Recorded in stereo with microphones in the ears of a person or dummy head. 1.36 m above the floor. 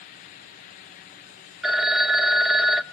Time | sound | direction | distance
1.6 | a phone ringing | centre (ahead or behind) | 0.7 m